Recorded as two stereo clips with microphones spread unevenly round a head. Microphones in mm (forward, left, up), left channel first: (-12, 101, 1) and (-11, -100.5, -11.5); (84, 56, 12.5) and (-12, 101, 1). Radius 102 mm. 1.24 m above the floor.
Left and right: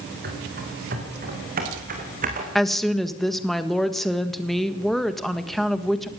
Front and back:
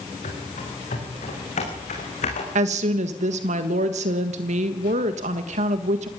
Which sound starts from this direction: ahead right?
Running footsteps, at 0.2 s.